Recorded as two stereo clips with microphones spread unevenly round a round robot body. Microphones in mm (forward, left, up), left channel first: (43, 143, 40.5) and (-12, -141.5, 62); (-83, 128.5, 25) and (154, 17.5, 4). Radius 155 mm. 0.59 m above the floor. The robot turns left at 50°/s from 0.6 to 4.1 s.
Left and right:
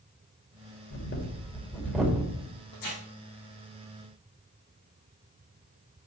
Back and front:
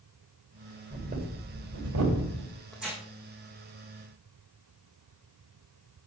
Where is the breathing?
45° left, 2.5 m; by 2.5 s 35° right, 2.5 m.